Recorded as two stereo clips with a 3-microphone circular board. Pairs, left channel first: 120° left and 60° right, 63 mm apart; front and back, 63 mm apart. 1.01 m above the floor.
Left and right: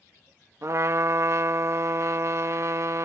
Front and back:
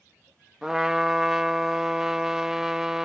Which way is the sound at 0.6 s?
100° right.